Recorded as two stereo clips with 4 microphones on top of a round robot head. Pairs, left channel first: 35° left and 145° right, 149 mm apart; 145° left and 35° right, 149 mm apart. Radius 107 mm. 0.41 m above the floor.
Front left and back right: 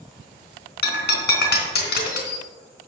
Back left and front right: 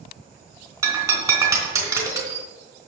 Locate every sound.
0.8 s breaking glass: 35° left, 3 m